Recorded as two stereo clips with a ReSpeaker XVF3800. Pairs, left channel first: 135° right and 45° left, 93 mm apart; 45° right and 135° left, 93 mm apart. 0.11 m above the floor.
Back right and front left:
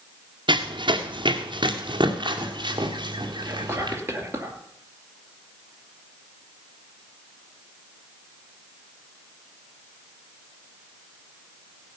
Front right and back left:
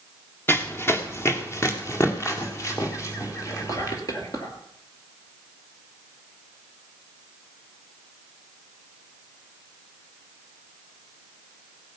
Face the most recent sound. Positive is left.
turn(degrees=-10)